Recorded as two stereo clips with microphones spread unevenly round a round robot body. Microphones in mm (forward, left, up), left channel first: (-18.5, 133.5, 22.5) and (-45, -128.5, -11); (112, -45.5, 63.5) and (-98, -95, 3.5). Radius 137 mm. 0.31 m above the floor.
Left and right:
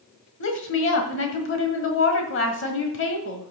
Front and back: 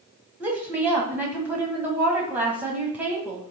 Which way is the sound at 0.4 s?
120° left.